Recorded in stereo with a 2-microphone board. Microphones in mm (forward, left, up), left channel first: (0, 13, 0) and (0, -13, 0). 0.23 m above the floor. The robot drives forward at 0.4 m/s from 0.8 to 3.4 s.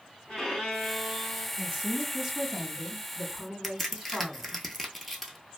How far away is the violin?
About 2 m.